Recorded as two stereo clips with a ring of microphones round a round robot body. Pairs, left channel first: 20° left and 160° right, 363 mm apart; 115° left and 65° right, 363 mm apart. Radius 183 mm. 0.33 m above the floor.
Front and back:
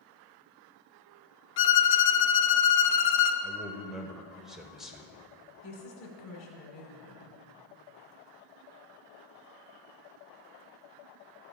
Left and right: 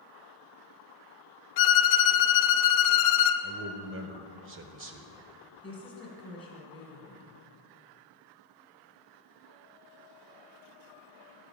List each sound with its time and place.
1.6 s a violin: 80° left, 0.9 m
3.4 s a man speaking: 70° right, 1.0 m
5.6 s a woman speaking: 30° left, 1.7 m